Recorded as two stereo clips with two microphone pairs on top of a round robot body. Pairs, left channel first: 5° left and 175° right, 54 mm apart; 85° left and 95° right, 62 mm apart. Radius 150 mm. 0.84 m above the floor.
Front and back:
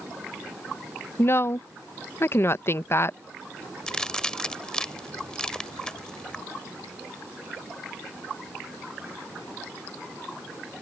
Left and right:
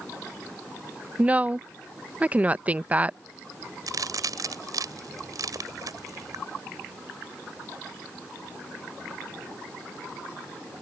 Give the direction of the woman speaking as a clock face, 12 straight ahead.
1 o'clock.